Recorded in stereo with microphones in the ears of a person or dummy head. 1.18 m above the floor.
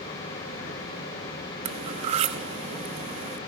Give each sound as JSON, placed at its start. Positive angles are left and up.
{"t": 1.6, "sound": "cutlery clinking", "side_deg": -30, "distance_m": 0.8}